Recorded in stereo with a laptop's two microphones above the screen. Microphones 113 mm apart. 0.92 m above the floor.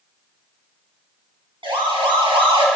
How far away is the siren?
About 7.5 m.